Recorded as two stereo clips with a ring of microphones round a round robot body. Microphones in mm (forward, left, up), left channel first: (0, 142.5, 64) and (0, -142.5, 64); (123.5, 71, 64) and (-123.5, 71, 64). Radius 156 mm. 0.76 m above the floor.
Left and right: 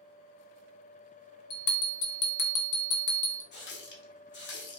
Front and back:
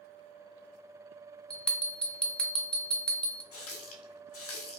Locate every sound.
1.5 s a bell: 85° left, 0.6 m
3.5 s a running tap: 35° left, 0.7 m